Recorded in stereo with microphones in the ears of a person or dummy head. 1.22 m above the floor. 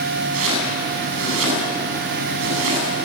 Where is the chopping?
75° right (ahead or behind), 8.5 m.